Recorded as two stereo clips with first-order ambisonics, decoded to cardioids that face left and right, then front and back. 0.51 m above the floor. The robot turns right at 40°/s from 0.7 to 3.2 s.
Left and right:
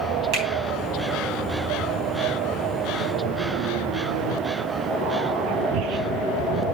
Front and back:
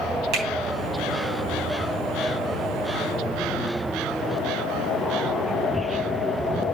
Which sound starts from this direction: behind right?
A finger snap, at 0.3 s.